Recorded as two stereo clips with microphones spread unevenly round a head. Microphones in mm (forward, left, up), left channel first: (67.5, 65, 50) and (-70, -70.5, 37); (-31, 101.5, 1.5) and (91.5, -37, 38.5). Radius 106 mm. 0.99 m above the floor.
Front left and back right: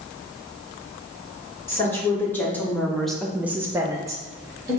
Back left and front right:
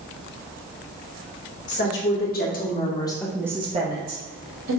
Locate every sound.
1.7 s a woman speaking: 125° left, 1.7 m; by 4.8 s 65° right, 1.3 m